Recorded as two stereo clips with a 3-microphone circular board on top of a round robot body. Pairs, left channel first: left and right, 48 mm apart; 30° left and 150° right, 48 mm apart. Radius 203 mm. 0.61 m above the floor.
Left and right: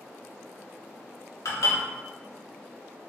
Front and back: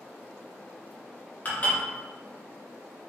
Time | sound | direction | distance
1.4 | dishes clattering | 90° left | 1.0 m